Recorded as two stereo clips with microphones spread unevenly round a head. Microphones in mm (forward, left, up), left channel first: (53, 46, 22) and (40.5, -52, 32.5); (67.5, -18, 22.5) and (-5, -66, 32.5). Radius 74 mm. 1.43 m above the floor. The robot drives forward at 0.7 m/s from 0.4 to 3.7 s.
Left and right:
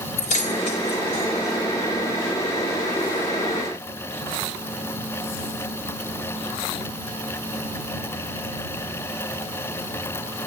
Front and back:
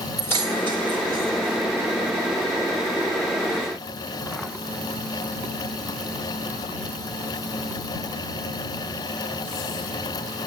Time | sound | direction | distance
0.2 | keys jangling | 110° left | 2.5 m